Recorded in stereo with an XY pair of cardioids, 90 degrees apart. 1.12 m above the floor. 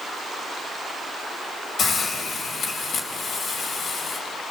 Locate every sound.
1.8 s a hiss: 60° left, 4.5 m